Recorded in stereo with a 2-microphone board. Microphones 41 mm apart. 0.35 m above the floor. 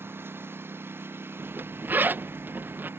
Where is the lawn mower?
65° right (ahead or behind).